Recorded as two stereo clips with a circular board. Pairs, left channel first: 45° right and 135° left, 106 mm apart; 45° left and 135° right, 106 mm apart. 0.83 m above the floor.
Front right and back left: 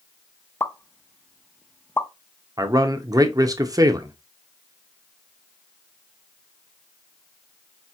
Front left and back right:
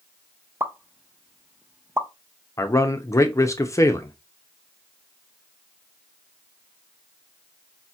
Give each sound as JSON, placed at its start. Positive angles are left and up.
{"t": 0.6, "sound": "a pop", "azimuth_deg": -95, "distance_m": 0.5}
{"t": 2.6, "sound": "a man speaking", "azimuth_deg": 95, "distance_m": 0.5}